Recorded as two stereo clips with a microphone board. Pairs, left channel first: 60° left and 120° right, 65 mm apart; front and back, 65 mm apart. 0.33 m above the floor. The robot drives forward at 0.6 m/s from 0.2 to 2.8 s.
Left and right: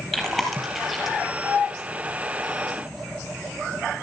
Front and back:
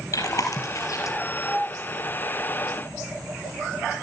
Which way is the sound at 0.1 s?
25° right.